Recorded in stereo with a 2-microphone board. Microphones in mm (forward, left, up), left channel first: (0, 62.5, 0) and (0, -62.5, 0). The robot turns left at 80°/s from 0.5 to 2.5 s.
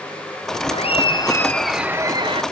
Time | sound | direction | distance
0.7 | laughter | 75° left | ?